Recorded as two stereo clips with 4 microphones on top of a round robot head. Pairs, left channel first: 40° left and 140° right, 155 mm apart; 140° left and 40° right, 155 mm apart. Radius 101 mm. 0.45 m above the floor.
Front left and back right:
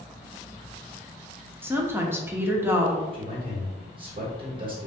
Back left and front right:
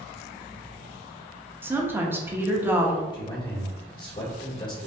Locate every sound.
1.6 s a woman speaking: 90° right, 0.7 m
3.1 s a man speaking: 175° right, 1.5 m